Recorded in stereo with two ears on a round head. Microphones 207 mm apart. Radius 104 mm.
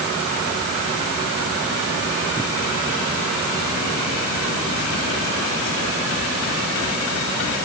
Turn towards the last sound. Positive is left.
No sound to turn to.